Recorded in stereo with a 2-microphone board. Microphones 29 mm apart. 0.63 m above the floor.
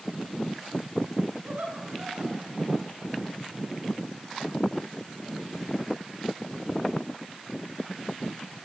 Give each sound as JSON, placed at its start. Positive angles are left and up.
{"t": 1.4, "sound": "laughter", "side_deg": -75, "distance_m": 5.5}